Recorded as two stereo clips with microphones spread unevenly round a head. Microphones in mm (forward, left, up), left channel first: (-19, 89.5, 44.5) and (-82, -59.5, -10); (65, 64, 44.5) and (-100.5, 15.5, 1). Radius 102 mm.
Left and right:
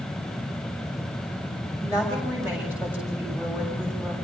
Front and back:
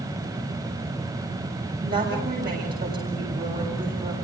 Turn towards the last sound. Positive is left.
turn(degrees=170)